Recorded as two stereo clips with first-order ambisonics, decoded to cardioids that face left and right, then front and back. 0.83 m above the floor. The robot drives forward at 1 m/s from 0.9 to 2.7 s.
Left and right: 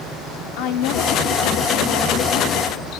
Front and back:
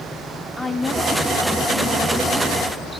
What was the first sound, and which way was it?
A woman speaking, 85° left.